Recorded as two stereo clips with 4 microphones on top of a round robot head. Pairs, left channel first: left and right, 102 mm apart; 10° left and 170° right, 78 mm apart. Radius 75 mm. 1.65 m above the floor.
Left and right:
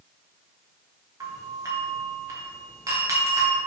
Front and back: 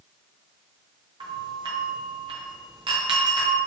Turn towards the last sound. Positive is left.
turn(degrees=-150)